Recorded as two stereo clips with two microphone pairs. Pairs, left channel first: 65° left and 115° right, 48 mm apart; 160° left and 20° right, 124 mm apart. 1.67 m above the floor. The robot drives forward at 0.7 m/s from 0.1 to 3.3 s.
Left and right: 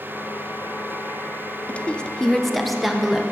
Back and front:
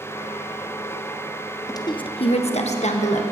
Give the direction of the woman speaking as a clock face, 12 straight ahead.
8 o'clock.